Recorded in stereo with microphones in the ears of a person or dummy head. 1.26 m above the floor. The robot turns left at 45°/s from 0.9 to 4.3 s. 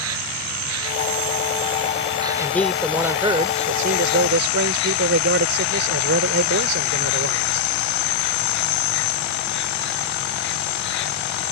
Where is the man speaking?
20° left; by 7.7 s 70° right.